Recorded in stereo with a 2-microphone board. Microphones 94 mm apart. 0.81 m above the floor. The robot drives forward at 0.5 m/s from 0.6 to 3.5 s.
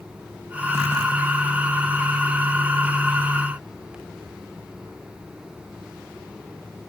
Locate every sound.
Only background noise.